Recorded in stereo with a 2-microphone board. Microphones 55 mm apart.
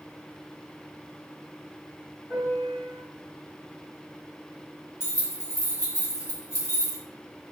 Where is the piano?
50° left (ahead or behind), 1.5 m.